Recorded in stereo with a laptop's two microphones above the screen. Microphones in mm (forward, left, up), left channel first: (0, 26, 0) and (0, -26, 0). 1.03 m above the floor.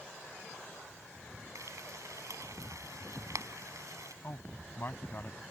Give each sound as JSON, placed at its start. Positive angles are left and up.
{"t": 1.6, "sound": "frying", "side_deg": -80}
{"t": 4.2, "sound": "a man speaking", "side_deg": 40}